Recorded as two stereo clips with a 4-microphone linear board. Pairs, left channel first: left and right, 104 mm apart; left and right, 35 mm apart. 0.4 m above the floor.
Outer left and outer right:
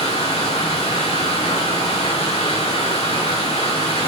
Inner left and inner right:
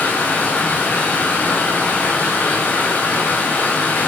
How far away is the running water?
About 6 m.